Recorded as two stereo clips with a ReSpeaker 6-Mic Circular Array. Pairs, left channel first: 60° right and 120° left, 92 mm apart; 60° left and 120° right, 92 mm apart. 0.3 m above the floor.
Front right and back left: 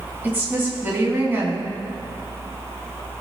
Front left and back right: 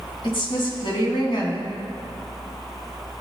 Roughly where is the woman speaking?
Ahead left.